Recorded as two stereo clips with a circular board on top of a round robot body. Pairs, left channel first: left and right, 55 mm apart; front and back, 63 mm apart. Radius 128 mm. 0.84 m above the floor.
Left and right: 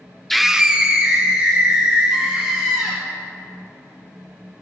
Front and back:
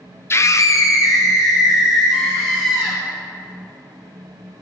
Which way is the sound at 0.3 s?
5° left.